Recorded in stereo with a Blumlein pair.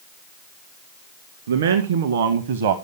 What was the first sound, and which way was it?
A man speaking, 65° right.